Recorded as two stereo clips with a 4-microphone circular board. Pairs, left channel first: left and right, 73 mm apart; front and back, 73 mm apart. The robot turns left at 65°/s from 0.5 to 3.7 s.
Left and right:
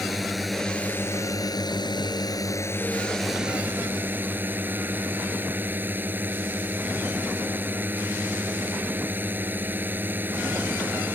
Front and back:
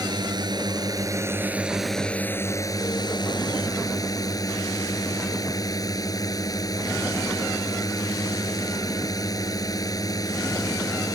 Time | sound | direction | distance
0.0 | a drone | straight behind | ?